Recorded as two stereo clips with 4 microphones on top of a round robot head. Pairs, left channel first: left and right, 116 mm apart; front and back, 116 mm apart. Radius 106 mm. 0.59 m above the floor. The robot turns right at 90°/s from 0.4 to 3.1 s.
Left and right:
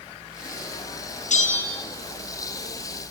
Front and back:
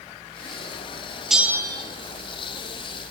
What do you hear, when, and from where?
1.3 s a bell: 90° left, 3.5 m; by 1.8 s 140° left, 3.5 m